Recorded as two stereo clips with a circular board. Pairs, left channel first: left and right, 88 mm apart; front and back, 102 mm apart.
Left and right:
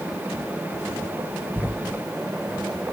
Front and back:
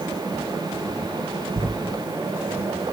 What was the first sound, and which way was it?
Writing, 160° left.